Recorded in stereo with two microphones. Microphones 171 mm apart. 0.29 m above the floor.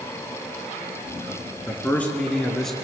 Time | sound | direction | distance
1.7 | a man speaking | 15° left (ahead or behind) | 4 m